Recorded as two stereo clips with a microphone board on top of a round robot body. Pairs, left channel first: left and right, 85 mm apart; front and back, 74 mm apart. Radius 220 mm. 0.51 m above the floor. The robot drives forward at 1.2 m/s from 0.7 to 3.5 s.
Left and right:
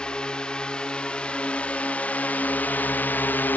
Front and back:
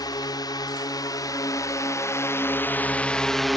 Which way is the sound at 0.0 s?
10° left.